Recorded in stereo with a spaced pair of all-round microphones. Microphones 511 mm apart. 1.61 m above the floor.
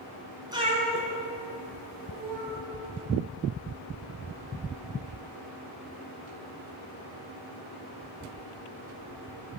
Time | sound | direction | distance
0.5 | a cat meowing | 10° right (ahead or behind) | 1.7 m